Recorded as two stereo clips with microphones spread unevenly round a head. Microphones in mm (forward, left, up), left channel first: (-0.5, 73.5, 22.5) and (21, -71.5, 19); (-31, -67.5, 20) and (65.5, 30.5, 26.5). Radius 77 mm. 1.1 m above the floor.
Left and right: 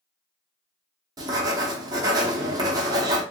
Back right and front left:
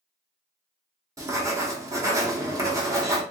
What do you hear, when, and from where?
1.2 s writing: 20° right, 0.9 m